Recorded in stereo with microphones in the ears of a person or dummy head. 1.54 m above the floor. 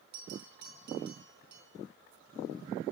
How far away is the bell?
About 4 m.